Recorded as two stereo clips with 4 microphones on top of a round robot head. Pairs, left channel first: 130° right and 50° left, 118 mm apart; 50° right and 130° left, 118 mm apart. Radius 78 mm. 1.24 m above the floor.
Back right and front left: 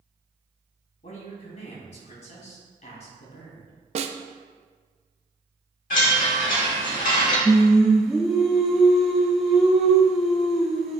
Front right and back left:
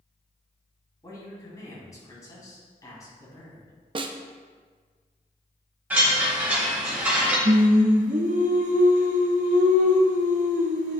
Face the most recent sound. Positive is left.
turn(degrees=135)